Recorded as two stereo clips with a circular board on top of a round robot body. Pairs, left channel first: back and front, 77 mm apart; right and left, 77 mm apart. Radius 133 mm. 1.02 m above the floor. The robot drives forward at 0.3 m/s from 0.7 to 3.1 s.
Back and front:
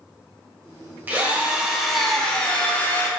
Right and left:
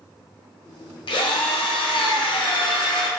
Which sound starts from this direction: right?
A drill, at 1.1 s.